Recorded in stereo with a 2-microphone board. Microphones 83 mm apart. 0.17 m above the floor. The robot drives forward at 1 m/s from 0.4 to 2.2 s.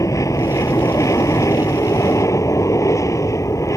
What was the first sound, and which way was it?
An aircraft, 40° left (ahead or behind).